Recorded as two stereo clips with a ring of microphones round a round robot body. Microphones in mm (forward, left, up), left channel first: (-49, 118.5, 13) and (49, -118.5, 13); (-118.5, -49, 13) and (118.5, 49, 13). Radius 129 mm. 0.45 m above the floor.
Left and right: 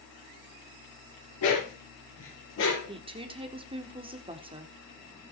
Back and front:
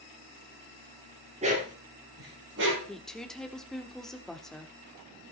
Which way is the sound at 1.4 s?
90° left.